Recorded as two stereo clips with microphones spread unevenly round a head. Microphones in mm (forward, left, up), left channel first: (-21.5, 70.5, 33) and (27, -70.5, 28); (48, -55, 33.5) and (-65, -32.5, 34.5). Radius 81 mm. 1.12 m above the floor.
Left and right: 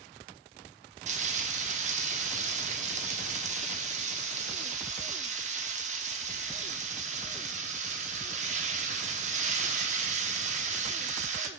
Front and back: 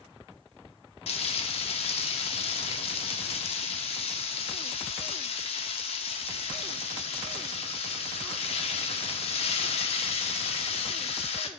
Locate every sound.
1.1 s frying: 35° right, 0.9 m